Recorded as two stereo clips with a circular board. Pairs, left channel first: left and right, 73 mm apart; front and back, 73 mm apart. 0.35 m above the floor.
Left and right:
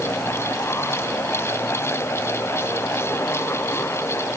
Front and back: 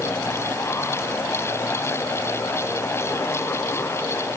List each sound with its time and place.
Only background noise.